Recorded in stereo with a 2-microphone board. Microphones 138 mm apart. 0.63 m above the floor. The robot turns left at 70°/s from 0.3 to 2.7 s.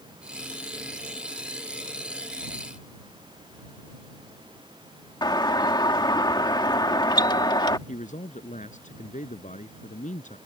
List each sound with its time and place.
5.2 s a doorbell: 30° left (ahead or behind)
7.9 s a man speaking: 65° left (ahead or behind)